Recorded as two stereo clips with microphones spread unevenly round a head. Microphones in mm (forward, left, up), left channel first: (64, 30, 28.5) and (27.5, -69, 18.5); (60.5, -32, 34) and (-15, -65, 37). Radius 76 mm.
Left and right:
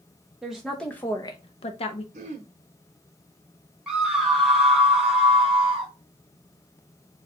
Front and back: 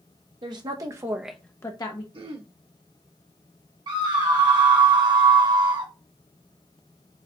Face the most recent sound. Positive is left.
turn(degrees=165)